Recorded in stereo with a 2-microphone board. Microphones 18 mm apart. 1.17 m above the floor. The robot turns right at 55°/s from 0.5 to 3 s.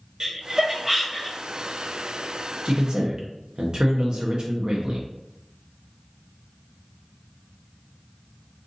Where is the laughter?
35° right (ahead or behind), 1.0 m; by 1.4 s 15° left (ahead or behind), 1.0 m.